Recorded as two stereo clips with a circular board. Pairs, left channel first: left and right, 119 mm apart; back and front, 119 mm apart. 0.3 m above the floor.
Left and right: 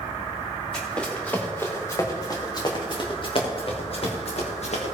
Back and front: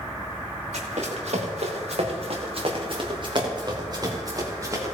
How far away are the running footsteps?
About 3.5 m.